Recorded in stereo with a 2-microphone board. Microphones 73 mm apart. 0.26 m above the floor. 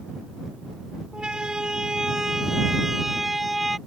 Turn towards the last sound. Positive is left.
turn(degrees=0)  # may be behind; listen again after turning